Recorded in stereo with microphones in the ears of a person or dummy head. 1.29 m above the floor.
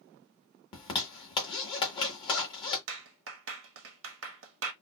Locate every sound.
0.7 s a zipper: 30° left (ahead or behind), 1.8 m
2.9 s a clap: 85° right, 1.3 m